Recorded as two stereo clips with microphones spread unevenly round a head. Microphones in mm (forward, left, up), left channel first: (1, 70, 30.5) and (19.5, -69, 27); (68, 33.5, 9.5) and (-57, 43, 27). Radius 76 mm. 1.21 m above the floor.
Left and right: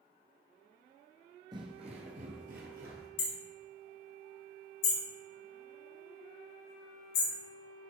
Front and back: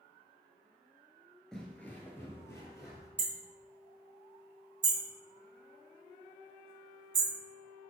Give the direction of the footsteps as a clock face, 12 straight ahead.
4 o'clock.